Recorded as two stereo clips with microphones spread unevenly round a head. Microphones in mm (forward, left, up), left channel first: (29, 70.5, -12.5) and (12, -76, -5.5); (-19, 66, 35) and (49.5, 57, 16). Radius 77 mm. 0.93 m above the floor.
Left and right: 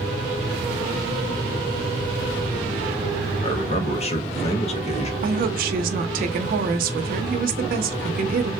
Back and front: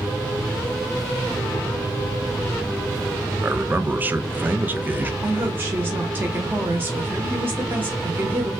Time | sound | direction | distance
3.4 | a man speaking | 45° left | 0.6 m
5.2 | a woman speaking | 70° right | 0.6 m